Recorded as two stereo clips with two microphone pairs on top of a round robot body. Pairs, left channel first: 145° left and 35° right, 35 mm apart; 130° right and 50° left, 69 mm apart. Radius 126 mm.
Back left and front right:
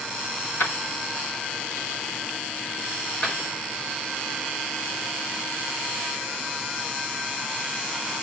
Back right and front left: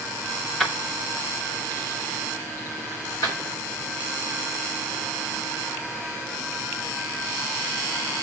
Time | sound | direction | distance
0.6 | keys jangling | 140° left | 2 m